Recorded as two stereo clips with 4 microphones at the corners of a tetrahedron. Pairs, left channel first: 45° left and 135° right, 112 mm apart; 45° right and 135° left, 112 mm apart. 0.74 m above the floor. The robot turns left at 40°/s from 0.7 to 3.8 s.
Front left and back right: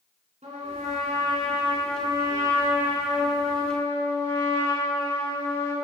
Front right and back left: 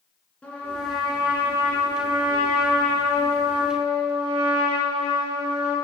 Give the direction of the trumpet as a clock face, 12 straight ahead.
4 o'clock.